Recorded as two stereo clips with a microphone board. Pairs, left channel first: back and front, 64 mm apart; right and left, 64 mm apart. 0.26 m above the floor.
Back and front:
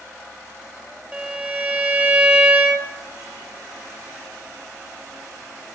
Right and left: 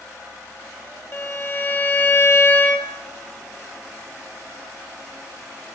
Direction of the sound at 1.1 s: 60° right.